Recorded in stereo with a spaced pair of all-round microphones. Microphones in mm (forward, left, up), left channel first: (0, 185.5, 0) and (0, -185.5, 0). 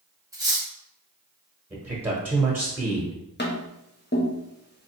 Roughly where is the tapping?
Left.